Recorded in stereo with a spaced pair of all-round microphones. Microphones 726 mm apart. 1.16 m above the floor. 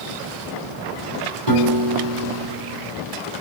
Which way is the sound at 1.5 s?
35° right (ahead or behind).